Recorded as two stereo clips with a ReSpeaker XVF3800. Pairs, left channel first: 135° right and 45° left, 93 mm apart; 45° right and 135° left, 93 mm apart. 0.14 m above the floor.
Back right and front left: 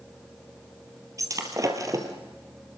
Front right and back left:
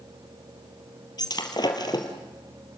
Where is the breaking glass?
5° right, 2.5 m.